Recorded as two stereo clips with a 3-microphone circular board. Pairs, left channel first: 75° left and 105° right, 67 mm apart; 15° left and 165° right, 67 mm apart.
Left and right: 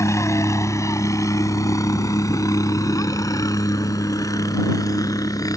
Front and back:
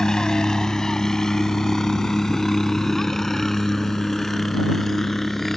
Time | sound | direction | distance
0.0 | a helicopter | 90° left | ?